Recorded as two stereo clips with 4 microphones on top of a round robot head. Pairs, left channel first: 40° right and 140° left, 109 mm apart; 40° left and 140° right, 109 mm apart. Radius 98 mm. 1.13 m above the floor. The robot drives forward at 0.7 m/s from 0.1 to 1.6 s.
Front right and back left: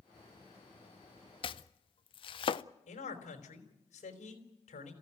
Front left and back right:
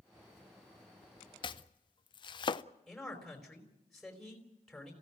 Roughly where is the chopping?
Ahead.